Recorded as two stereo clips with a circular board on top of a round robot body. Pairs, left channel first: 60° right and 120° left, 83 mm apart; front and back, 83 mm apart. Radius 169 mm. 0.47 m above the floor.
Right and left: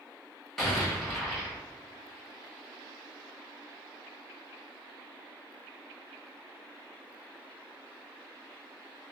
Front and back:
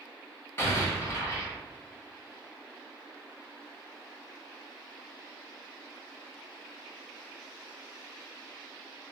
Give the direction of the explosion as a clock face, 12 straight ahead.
11 o'clock.